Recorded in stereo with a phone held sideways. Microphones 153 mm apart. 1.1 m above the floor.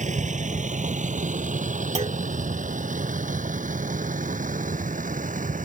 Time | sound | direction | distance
0.0 | a vehicle | 55° right (ahead or behind) | ?
1.9 | a clunk | 50° right (ahead or behind) | ?